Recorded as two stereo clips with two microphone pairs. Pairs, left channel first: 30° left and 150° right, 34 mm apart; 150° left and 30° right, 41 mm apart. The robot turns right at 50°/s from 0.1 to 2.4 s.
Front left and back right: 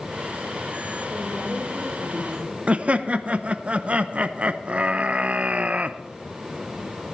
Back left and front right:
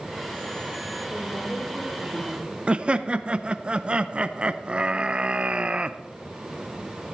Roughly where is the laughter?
Right.